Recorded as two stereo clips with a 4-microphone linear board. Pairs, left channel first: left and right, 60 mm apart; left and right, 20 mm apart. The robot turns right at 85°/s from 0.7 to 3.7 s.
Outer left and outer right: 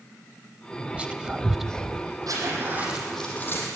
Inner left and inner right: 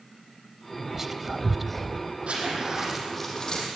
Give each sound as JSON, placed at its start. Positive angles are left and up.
{"t": 0.9, "sound": "whispering", "side_deg": -25, "distance_m": 0.9}
{"t": 2.3, "sound": "a zipper", "azimuth_deg": -75, "distance_m": 7.5}